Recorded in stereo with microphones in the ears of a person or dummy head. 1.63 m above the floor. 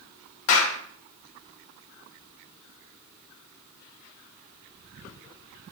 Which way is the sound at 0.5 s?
70° left (ahead or behind).